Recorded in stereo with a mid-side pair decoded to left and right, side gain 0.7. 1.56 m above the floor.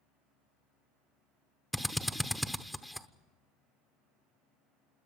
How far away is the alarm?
I don't hear an alarm.